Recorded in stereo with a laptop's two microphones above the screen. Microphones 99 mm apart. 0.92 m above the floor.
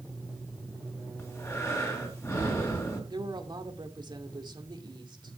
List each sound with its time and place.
1.2 s breathing: 30° left (ahead or behind), 3 m
3.1 s a woman speaking: 50° right (ahead or behind), 2 m